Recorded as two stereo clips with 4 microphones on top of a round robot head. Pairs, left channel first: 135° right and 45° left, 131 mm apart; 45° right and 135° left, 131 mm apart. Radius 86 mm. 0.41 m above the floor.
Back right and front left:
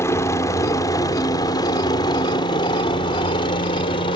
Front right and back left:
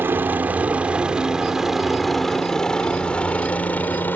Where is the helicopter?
175° right; by 4.2 s 115° right.